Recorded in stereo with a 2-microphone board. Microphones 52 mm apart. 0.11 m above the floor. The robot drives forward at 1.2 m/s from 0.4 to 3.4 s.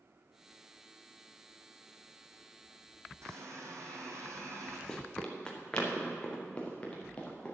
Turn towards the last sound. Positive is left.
turn(degrees=20)  # may be behind; listen again after turning